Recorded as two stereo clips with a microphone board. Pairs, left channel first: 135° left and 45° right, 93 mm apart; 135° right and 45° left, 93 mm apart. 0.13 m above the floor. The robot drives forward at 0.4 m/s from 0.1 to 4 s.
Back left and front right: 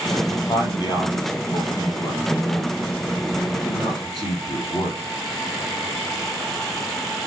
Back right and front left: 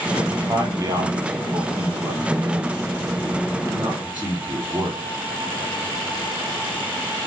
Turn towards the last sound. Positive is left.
turn(degrees=120)